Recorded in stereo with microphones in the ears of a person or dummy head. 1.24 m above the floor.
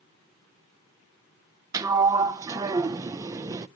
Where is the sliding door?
20° right (ahead or behind), 0.5 m.